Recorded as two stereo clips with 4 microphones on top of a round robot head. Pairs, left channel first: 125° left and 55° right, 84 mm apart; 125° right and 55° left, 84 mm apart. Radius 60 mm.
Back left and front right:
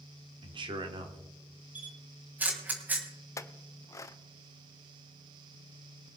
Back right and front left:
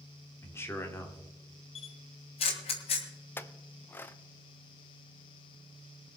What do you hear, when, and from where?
0.4 s a man speaking: 65° right, 1.8 m
1.8 s a camera shutter: 130° right, 1.8 m
3.4 s a clink: 175° left, 0.6 m